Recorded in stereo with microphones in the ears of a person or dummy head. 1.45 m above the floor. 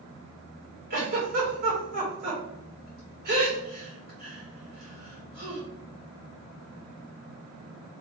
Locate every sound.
0.9 s a giggle: 50° right (ahead or behind), 3.5 m